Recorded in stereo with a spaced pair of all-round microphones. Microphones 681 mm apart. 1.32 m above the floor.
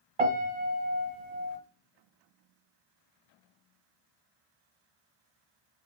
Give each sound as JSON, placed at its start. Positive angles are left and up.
{"t": 0.2, "sound": "a piano", "side_deg": -55, "distance_m": 1.6}